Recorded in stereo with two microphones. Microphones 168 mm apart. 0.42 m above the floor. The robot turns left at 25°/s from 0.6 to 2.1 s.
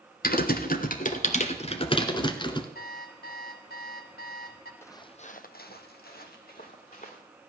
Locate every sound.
0.2 s typing on a keyboard: 65° left, 1.2 m; by 2.6 s 30° left, 1.2 m
2.8 s an alarm clock: 75° left (ahead or behind), 1.9 m
4.8 s footsteps: 15° left (ahead or behind), 1.1 m; by 7.2 s 55° left (ahead or behind), 3 m